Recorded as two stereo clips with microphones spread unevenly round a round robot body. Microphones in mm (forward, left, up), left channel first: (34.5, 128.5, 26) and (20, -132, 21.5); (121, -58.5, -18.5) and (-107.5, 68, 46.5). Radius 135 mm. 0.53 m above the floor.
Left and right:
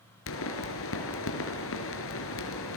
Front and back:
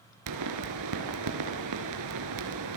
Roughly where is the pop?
Behind left.